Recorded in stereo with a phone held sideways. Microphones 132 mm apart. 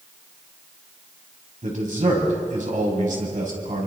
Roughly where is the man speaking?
Right.